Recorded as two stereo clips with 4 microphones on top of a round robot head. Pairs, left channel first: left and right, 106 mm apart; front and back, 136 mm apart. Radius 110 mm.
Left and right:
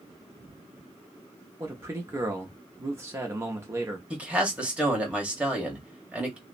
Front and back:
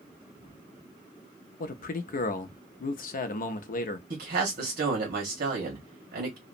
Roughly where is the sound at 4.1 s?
Behind.